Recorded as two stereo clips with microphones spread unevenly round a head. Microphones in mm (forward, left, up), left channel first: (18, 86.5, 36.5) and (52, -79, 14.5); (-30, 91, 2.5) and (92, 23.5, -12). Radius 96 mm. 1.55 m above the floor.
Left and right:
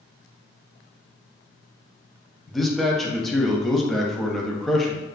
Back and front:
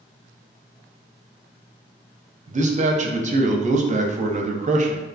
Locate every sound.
2.5 s a man speaking: 10° left, 0.5 m